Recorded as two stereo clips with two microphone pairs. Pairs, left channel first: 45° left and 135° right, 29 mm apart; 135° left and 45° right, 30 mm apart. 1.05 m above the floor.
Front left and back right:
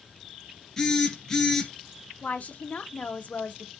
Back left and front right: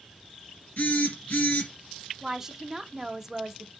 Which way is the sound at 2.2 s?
30° left.